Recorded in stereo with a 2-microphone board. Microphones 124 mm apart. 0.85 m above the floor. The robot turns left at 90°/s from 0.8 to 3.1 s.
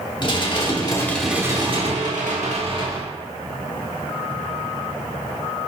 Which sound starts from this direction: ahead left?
Dishes clattering, at 0.2 s.